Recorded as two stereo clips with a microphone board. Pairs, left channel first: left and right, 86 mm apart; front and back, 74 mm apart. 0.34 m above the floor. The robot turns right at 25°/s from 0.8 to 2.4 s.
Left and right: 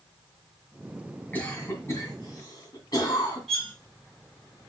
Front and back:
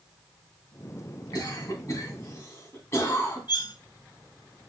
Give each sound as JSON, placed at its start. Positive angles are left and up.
{"t": 1.3, "sound": "a cough", "azimuth_deg": 25, "distance_m": 2.5}
{"t": 3.5, "sound": "cutlery clinking", "azimuth_deg": 5, "distance_m": 1.8}